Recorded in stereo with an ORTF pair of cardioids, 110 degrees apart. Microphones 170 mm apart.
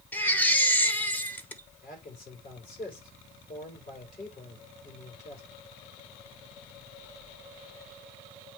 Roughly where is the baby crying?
Ahead.